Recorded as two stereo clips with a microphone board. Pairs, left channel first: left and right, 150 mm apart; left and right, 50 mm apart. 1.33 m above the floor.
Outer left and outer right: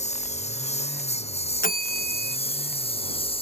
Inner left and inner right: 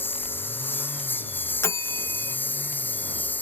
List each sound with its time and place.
0.0 s a lawn mower: 50° left (ahead or behind); by 3.4 s 40° left (ahead or behind)
1.6 s a bell: 70° left (ahead or behind)